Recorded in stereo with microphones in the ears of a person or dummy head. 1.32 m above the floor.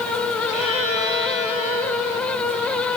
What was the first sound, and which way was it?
A violin, 40° left (ahead or behind).